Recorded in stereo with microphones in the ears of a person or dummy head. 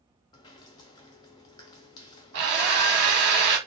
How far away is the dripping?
About 0.6 m.